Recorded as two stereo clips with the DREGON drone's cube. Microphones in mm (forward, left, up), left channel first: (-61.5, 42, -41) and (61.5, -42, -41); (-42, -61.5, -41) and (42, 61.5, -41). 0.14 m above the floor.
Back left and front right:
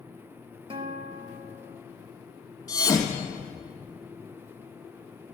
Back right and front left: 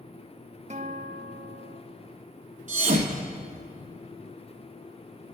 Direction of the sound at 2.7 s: 85° left.